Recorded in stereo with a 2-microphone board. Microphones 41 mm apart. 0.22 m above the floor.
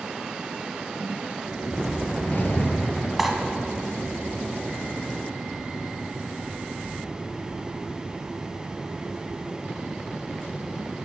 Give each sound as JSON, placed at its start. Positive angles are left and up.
{"t": 1.6, "sound": "a whoosh", "side_deg": 50, "distance_m": 0.7}
{"t": 3.2, "sound": "cutlery clinking", "side_deg": -5, "distance_m": 1.0}